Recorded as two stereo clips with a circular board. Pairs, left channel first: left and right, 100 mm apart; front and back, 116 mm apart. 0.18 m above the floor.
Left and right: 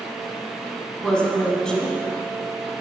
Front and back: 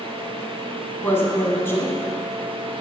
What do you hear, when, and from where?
1.0 s a woman speaking: 20° left, 1.0 m